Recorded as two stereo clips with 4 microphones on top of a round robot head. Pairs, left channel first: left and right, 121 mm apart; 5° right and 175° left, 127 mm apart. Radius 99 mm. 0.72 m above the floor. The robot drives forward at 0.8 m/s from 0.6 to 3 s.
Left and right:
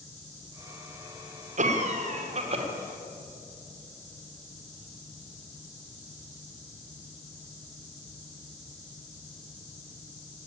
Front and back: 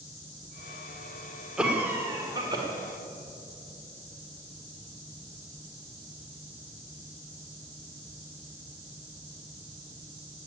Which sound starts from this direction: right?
A cough, at 1.6 s.